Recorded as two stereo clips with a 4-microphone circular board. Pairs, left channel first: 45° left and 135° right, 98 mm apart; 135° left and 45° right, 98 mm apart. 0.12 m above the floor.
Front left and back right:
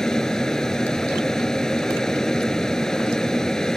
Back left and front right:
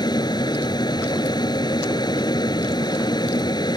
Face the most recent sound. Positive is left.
turn(degrees=130)